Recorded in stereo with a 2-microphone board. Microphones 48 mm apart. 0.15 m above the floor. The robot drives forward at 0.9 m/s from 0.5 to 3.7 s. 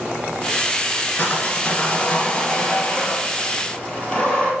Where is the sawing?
40° left (ahead or behind), 1.6 m; by 4.5 s 20° left (ahead or behind), 3 m.